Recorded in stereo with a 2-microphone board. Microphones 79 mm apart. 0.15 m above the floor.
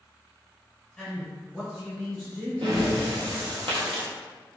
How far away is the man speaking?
About 1.7 m.